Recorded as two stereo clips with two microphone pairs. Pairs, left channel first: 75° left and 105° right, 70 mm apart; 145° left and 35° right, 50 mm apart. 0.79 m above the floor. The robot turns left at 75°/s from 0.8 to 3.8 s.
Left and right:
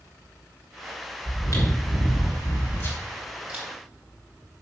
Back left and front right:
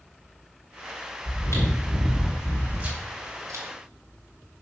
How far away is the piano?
No piano in this recording.